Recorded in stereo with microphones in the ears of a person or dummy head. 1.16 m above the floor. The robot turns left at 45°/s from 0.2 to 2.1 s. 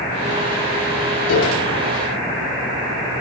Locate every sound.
1.3 s a piano: 85° left, 8.5 m; by 1.7 s 75° left (ahead or behind), 8.5 m